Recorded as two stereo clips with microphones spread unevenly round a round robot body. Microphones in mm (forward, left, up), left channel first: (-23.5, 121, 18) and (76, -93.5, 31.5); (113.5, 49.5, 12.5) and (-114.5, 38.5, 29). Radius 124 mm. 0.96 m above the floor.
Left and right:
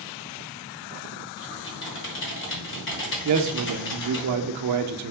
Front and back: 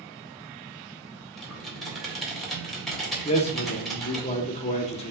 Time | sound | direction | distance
1.4 | typing on a keyboard | 90° left | 1.5 m
3.2 | a man speaking | 60° right | 0.6 m